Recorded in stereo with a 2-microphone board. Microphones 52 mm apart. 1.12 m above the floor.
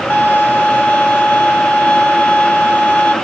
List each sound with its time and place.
0.1 s a violin: 30° left (ahead or behind), 1.0 m